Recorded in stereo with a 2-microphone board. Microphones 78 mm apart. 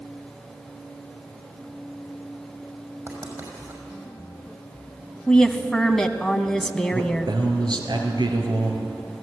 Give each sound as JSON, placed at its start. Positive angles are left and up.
{"t": 3.1, "sound": "writing", "side_deg": -40, "distance_m": 5.5}
{"t": 5.3, "sound": "a woman speaking", "side_deg": 5, "distance_m": 1.1}
{"t": 6.9, "sound": "a man speaking", "side_deg": -70, "distance_m": 3.5}